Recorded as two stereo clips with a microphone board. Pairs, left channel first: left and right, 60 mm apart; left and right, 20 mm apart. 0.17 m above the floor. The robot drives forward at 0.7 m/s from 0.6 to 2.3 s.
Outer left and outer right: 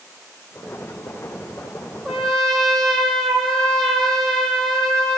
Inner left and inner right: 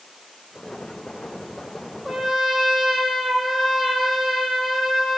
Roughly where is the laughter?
No laughter in this recording.